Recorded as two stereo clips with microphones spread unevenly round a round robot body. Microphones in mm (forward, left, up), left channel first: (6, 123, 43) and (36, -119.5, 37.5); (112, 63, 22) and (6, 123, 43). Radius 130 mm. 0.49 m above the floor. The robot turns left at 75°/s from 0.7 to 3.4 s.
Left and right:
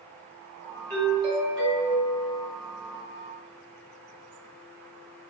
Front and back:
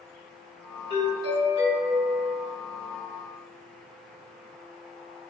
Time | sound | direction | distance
0.9 | a doorbell | 170° left | 1.9 m